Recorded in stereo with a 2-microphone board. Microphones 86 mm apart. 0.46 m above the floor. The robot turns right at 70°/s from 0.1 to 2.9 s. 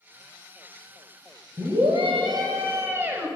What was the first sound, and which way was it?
A scream, 120° right.